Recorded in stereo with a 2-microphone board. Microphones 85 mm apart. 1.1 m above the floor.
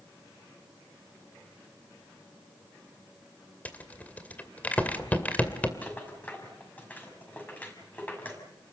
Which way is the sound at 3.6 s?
15° left (ahead or behind).